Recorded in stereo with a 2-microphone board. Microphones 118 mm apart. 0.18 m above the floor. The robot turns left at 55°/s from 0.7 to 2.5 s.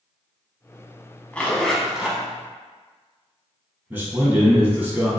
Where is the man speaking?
15° right (ahead or behind), 1.1 m.